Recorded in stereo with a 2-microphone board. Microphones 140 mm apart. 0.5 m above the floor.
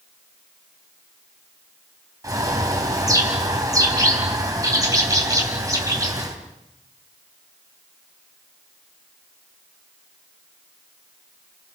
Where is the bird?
25° right (ahead or behind), 3 m.